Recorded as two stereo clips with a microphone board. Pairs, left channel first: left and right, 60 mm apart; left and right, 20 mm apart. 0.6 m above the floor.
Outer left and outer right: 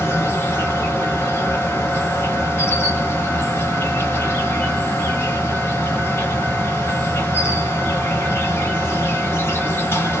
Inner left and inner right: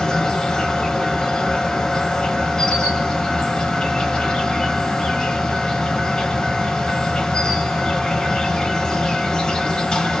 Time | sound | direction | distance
0.0 | an insect | 40° left (ahead or behind) | 0.9 m